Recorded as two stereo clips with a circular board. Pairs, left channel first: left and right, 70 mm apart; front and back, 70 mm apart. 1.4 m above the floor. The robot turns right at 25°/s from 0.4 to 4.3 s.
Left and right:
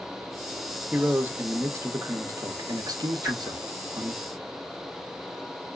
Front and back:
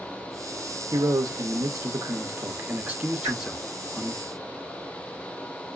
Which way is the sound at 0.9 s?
165° right.